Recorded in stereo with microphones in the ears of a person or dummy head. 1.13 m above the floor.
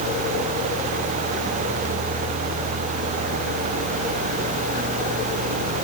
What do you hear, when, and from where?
Only background noise.